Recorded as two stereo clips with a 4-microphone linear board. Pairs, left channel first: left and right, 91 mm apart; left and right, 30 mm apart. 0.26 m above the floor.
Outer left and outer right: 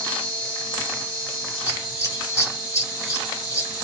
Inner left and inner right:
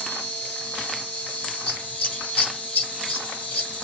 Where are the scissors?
35° left (ahead or behind), 1.7 m.